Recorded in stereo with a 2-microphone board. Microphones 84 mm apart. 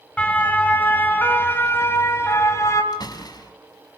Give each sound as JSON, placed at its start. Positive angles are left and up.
{"t": 0.2, "sound": "a siren", "side_deg": 15, "distance_m": 3.5}
{"t": 2.9, "sound": "a door slam", "side_deg": 50, "distance_m": 3.0}